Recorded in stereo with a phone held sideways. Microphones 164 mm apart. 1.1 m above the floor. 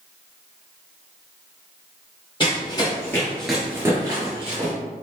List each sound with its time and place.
2.4 s running footsteps: 30° left (ahead or behind), 1.6 m; by 4.7 s 35° right (ahead or behind), 1.6 m